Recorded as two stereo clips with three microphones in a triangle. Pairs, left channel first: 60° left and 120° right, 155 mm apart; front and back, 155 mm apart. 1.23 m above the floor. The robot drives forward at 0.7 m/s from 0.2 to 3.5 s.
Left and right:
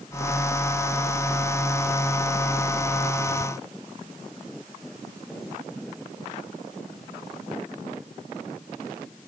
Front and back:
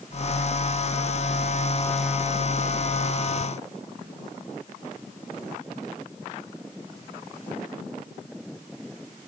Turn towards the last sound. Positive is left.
No sound to turn to.